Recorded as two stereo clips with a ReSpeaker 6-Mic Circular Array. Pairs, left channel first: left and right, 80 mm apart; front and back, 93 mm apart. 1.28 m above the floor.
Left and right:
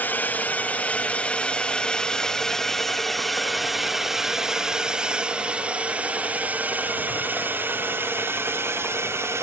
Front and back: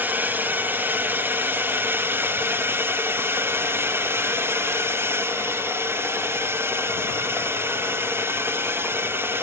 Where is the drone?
130° left; by 9.4 s 125° right.